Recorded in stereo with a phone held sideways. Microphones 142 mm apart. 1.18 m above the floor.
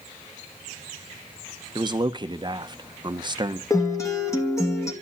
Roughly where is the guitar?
Left.